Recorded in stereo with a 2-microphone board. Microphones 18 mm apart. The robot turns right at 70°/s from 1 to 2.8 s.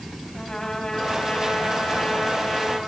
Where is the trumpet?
35° left, 5 m; by 2.8 s 160° left, 5 m.